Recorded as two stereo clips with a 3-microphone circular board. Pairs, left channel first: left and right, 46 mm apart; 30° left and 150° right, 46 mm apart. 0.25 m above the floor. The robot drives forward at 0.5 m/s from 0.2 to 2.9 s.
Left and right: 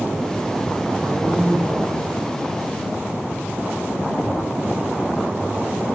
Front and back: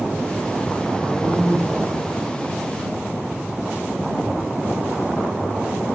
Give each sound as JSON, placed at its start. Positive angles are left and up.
{"t": 1.0, "sound": "a man speaking", "azimuth_deg": -95, "distance_m": 6.0}